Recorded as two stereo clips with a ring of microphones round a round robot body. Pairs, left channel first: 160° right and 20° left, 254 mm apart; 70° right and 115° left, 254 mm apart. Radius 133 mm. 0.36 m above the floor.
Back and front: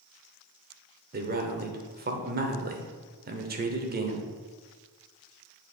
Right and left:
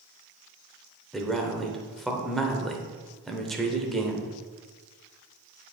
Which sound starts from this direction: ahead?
A man speaking, at 1.1 s.